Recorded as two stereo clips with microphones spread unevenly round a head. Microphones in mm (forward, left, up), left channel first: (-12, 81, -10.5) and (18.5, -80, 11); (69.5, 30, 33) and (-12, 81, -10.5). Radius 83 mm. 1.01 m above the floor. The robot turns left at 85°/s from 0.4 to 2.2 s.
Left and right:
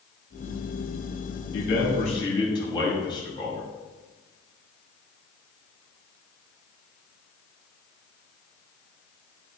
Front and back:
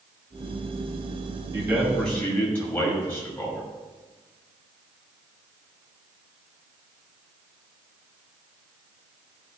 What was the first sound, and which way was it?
A man speaking, 90° left.